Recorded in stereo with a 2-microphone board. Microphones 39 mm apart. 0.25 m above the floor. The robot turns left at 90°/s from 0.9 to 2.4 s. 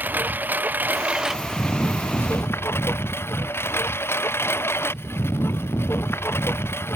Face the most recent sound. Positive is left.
turn(degrees=95)